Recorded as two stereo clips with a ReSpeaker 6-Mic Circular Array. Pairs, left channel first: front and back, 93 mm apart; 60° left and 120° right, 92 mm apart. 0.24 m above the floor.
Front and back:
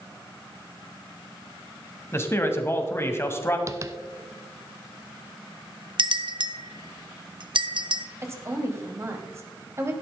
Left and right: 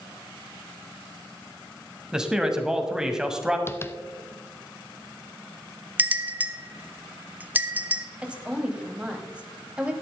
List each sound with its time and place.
2.1 s a man speaking: 40° right, 1.5 m
3.7 s tapping: 125° left, 0.6 m
6.0 s a bell: 170° left, 0.8 m
8.2 s a woman speaking: 175° left, 1.7 m